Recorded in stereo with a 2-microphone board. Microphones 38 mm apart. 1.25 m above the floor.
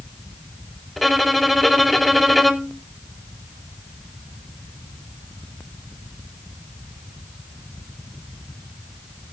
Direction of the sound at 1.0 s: Centre (ahead or behind).